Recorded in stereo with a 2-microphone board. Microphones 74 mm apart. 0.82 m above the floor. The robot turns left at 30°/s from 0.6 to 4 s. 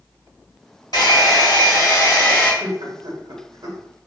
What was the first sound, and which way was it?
A hair dryer, 75° left.